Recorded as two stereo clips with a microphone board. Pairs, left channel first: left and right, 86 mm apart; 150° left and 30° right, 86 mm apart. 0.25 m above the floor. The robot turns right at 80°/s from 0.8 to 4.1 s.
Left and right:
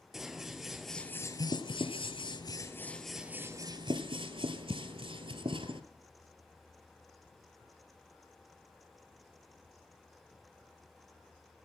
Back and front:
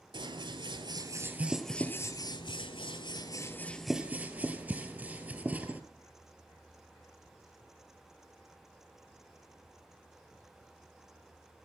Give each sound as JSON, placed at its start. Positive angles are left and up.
{"t": 0.1, "sound": "scissors", "azimuth_deg": -5, "distance_m": 1.3}